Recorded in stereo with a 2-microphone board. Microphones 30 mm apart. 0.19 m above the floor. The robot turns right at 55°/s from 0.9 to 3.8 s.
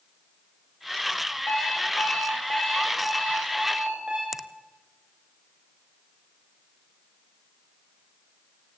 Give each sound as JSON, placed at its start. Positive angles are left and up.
{"t": 1.5, "sound": "an alarm clock", "azimuth_deg": 80, "distance_m": 8.5}
{"t": 4.3, "sound": "a finger snap", "side_deg": -10, "distance_m": 0.8}